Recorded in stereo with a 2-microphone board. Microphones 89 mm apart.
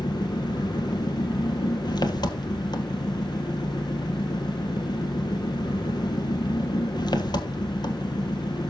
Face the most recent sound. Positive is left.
turn(degrees=50)  # may be behind; listen again after turning